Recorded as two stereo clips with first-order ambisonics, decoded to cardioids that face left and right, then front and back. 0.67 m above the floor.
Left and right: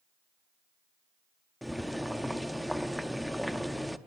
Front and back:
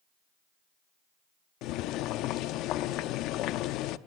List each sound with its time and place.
1.6 s boiling: straight ahead, 0.6 m